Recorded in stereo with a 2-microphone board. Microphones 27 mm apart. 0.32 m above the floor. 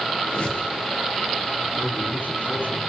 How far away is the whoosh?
About 7.5 m.